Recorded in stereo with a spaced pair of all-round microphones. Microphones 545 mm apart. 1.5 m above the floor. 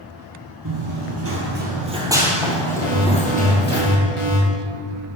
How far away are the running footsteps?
About 1.8 m.